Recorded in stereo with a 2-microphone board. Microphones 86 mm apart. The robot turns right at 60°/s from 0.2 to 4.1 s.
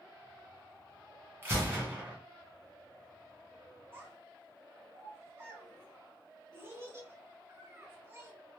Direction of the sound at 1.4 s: 25° right (ahead or behind).